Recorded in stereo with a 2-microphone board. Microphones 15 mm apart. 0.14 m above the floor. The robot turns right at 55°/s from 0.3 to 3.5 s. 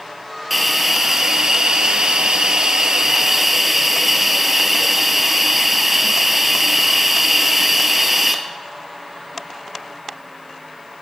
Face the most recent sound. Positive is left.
turn(degrees=-10)